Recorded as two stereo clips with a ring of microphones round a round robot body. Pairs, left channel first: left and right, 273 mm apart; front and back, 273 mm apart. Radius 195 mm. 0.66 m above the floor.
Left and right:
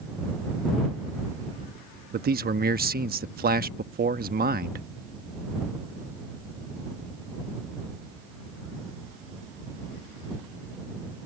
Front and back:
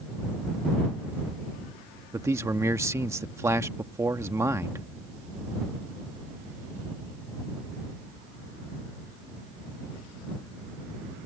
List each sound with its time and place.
2.1 s a man speaking: 105° right